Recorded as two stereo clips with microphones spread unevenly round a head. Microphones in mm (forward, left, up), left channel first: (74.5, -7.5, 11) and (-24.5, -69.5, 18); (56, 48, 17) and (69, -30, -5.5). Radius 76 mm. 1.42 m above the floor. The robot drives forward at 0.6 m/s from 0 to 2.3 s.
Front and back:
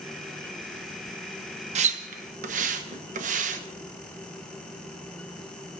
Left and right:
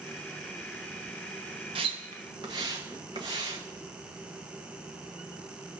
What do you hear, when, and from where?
1.8 s a splash: 125° right, 0.7 m; by 3.6 s 145° right, 0.9 m